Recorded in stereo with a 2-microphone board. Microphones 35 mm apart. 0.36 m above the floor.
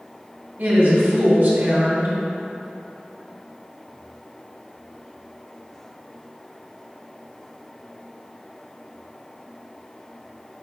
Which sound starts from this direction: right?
A woman speaking, at 0.6 s.